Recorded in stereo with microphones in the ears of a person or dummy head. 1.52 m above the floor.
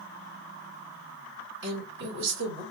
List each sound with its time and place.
1.6 s a woman speaking: 85° right, 2.5 m